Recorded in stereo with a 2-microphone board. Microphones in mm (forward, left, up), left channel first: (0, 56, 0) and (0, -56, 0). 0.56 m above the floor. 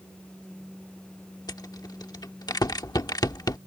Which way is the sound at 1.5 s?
35° left (ahead or behind).